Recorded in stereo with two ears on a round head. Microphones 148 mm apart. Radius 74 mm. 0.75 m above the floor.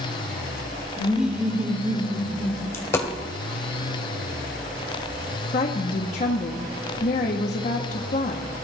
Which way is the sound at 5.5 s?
45° left (ahead or behind).